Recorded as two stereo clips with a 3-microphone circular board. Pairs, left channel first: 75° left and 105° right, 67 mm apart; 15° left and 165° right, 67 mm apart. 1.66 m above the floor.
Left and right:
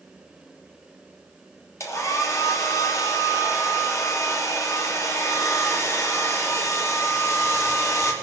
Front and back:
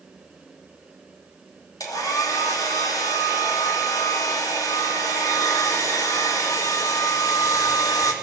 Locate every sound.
1.8 s a hair dryer: 35° left, 3 m